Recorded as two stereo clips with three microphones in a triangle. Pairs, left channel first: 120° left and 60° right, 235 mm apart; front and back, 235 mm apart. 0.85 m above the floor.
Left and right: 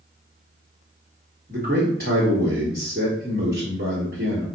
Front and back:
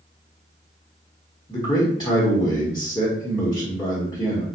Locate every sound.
1.5 s a man speaking: 65° right, 1.2 m